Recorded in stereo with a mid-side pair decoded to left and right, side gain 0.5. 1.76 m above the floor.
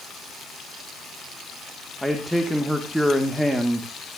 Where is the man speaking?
5° right, 1.9 m.